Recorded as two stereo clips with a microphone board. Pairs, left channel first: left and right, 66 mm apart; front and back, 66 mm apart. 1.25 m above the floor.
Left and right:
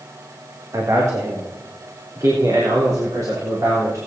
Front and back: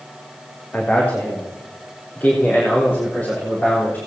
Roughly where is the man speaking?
Ahead right.